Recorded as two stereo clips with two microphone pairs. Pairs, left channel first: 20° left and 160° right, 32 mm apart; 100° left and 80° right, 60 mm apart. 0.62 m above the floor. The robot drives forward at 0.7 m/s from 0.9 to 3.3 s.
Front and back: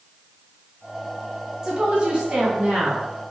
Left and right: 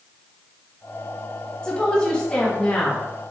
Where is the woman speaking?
165° left, 1.2 m; by 3.1 s 175° left, 1.9 m.